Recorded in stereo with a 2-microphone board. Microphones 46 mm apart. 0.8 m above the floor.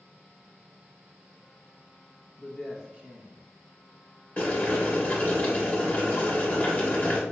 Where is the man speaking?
25° left (ahead or behind), 0.7 m; by 3.4 s 50° right (ahead or behind), 1.1 m.